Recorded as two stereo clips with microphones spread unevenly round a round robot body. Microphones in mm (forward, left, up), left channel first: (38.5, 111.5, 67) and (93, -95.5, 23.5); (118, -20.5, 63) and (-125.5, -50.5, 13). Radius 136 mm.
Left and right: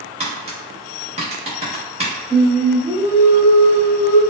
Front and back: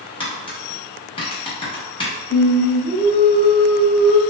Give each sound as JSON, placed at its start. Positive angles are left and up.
{"t": 0.2, "sound": "tapping", "azimuth_deg": -70, "distance_m": 1.1}
{"t": 2.3, "sound": "singing", "azimuth_deg": -25, "distance_m": 1.0}